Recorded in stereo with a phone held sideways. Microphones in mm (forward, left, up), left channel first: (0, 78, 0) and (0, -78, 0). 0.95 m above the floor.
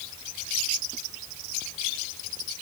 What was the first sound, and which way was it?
Only background noise.